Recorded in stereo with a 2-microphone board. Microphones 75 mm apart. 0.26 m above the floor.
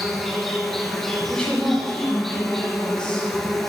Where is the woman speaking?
15° left (ahead or behind), 2 m.